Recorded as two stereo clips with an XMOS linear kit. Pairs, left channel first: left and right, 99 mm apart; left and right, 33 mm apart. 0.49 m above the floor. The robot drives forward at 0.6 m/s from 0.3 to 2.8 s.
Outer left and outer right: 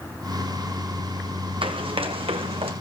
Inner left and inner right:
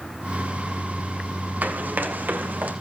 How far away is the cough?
No cough in this recording.